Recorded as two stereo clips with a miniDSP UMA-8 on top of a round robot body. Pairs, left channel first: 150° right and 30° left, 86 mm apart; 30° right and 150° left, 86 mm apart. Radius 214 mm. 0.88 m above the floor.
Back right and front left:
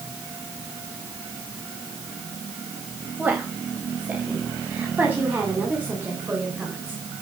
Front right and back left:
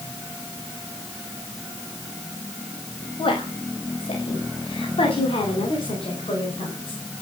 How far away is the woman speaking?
About 4.5 m.